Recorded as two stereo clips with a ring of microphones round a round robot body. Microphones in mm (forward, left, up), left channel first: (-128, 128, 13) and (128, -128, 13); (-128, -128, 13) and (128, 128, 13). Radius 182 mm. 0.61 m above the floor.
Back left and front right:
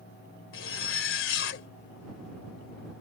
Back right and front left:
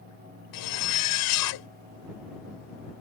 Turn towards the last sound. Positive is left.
turn(degrees=-170)